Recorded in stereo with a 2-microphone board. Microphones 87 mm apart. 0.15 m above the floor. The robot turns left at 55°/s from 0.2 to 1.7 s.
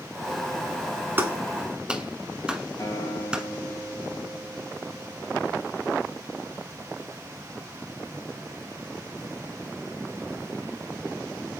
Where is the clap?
25° right (ahead or behind), 1.6 m; by 3.4 s 10° right (ahead or behind), 1.6 m.